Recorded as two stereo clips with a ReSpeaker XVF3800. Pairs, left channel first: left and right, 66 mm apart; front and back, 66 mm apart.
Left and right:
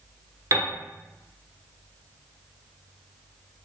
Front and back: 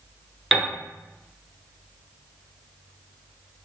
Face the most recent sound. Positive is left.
turn(degrees=-95)